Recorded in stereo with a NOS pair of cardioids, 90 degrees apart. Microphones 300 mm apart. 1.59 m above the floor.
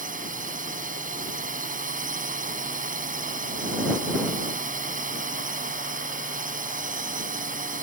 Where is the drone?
25° right.